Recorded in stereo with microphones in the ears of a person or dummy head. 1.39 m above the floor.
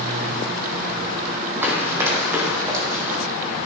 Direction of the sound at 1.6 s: 15° right (ahead or behind).